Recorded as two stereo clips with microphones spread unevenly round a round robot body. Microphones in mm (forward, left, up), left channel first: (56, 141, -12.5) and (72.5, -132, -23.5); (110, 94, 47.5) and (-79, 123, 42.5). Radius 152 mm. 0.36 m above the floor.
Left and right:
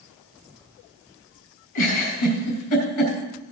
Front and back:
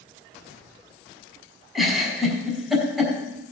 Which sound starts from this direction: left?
A giggle, at 1.8 s.